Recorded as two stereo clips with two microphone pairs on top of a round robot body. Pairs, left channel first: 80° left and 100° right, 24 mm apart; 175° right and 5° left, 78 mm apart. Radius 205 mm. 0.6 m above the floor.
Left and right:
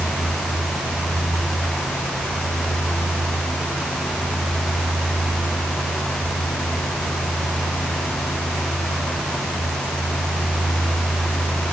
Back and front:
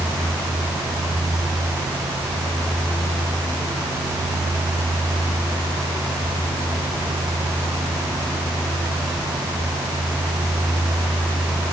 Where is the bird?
No bird in this recording.